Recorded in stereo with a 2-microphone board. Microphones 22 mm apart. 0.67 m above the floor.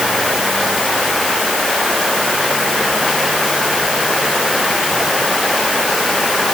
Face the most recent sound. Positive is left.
No sound to turn to.